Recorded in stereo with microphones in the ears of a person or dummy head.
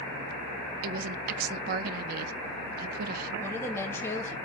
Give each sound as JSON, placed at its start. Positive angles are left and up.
{"t": 0.8, "sound": "a woman speaking", "side_deg": -45, "distance_m": 0.6}
{"t": 3.4, "sound": "a woman speaking", "side_deg": 15, "distance_m": 2.0}